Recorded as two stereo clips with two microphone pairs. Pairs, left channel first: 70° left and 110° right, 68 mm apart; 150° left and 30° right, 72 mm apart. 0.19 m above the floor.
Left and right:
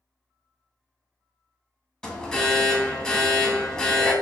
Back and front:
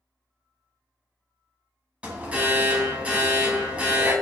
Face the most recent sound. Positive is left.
turn(degrees=10)